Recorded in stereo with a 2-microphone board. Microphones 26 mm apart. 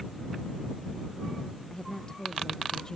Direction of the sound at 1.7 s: 30° left (ahead or behind).